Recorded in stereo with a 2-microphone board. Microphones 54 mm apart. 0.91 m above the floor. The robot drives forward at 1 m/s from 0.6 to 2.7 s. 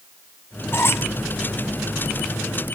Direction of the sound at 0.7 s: 50° left (ahead or behind).